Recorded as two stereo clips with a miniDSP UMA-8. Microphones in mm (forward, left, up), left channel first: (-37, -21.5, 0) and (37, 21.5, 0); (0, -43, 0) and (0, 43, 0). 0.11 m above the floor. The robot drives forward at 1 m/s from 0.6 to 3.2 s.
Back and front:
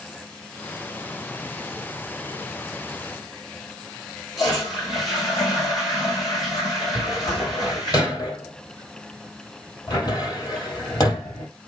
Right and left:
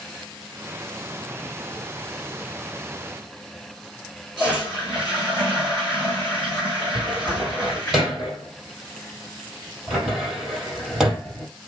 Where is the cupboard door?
175° left, 3.5 m.